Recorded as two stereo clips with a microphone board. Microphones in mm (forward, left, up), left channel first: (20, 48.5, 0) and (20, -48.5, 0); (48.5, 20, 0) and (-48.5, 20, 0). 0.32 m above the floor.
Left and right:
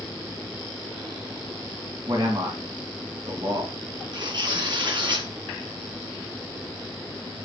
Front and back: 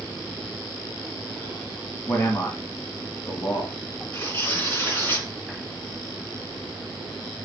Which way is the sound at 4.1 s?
60° right.